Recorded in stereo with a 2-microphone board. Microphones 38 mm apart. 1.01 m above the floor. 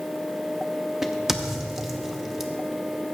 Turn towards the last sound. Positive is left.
turn(degrees=-10)  # may be behind; listen again after turning